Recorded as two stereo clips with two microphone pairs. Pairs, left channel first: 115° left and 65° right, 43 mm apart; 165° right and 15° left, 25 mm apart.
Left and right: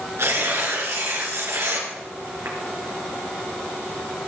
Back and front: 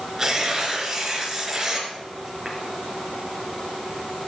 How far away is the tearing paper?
About 3.5 m.